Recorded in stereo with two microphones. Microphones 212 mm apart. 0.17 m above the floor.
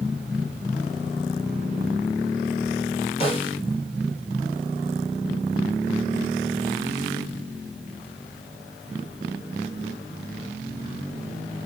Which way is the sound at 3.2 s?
25° left (ahead or behind).